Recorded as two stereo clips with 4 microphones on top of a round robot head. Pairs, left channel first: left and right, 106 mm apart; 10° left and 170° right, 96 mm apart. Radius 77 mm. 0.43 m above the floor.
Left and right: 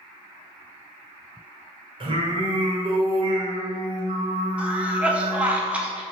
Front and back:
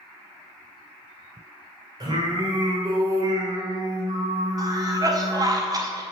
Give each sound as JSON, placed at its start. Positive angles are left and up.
{"t": 2.0, "sound": "singing", "azimuth_deg": -125, "distance_m": 2.0}
{"t": 4.6, "sound": "a cough", "azimuth_deg": -160, "distance_m": 1.5}